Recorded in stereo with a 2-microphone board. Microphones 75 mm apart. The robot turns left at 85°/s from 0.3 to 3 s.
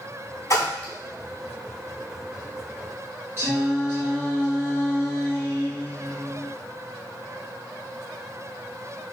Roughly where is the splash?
Left.